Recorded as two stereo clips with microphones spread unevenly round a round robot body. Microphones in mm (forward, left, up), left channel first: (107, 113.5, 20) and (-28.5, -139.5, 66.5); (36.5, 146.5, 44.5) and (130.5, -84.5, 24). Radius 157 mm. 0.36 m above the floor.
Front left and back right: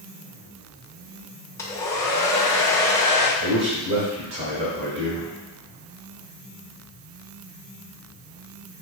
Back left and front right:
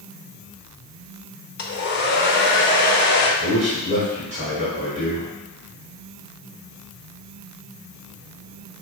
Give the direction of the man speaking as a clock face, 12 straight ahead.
3 o'clock.